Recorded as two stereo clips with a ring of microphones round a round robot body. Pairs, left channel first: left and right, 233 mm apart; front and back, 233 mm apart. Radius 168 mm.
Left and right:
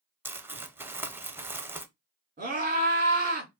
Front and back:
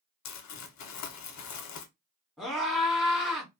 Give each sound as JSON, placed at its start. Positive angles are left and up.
{"t": 0.2, "sound": "crumpling", "azimuth_deg": -10, "distance_m": 0.5}
{"t": 2.4, "sound": "a scream", "azimuth_deg": -90, "distance_m": 1.4}